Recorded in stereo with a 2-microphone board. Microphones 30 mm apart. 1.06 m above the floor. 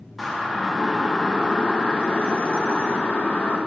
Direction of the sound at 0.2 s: Centre (ahead or behind).